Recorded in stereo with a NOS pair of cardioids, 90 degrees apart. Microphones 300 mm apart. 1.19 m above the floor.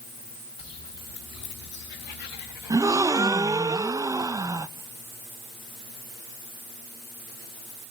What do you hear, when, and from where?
0.6 s footsteps: 55° left, 6 m; by 3.6 s 75° left, 6 m
2.7 s a gasp: 10° right, 0.5 m